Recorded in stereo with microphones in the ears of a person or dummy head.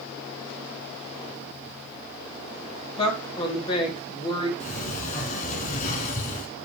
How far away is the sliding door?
About 2.5 m.